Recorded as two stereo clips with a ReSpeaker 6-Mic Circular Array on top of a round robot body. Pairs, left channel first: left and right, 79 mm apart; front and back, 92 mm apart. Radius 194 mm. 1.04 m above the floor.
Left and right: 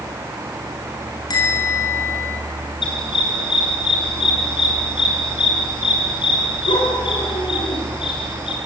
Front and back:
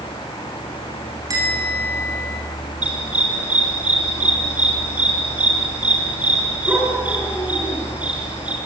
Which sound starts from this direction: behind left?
A bell, at 1.3 s.